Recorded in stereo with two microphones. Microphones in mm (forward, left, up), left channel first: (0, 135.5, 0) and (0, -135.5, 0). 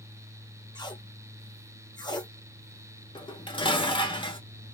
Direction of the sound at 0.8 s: 15° left (ahead or behind).